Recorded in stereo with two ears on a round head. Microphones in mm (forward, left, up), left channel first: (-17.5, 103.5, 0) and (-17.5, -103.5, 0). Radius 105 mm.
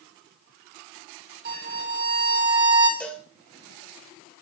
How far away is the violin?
About 1.7 m.